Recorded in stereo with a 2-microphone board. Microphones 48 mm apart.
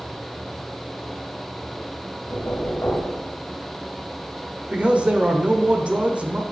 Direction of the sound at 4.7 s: 25° right (ahead or behind).